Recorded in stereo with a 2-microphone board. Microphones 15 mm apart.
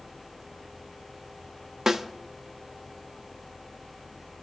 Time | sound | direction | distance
1.9 | a snare drum | 25° right (ahead or behind) | 0.6 m